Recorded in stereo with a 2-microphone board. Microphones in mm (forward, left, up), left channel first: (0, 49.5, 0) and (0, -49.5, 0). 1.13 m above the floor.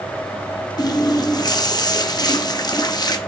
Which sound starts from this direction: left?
A running tap, at 0.8 s.